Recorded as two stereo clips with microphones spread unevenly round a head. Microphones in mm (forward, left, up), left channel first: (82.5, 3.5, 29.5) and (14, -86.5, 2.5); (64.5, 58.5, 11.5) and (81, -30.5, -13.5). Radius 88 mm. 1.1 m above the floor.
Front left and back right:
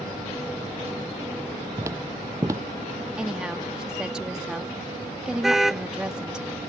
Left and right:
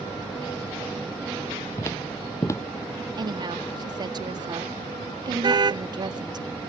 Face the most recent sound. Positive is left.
turn(degrees=-40)